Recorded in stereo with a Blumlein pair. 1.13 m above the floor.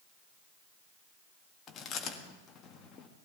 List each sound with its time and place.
1.7 s chewing: 25° left, 1.5 m